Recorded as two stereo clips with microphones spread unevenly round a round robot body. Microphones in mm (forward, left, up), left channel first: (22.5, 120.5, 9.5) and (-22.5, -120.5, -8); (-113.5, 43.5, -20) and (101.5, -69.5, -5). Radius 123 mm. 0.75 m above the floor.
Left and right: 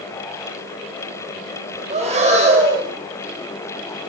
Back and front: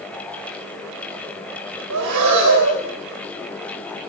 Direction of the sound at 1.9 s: 40° right.